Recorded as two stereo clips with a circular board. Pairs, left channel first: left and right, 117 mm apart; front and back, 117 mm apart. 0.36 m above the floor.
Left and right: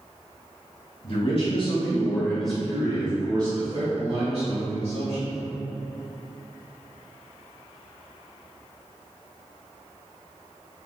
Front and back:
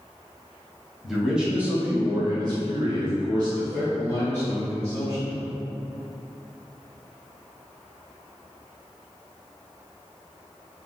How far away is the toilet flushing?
No toilet flushing in this recording.